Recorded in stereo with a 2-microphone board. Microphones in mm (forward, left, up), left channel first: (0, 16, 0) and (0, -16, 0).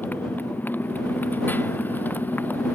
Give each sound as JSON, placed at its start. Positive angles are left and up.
{"t": 0.0, "sound": "a motorcycle", "side_deg": 75}